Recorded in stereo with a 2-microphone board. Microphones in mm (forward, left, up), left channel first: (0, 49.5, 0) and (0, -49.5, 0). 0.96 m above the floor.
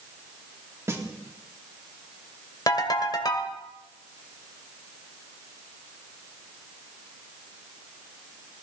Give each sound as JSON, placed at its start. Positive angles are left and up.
{"t": 0.9, "sound": "a snare drum", "side_deg": -25, "distance_m": 2.0}
{"t": 2.7, "sound": "a ringtone", "side_deg": 40, "distance_m": 1.8}